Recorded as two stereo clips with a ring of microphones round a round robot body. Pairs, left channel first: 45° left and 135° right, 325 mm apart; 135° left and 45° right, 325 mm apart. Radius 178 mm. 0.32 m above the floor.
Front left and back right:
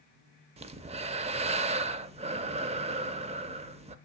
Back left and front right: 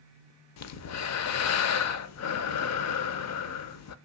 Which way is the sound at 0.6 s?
160° left.